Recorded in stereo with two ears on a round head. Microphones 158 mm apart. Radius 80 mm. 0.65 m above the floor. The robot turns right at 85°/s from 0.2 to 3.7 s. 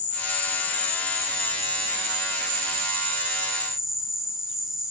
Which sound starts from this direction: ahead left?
An insect, at 0.0 s.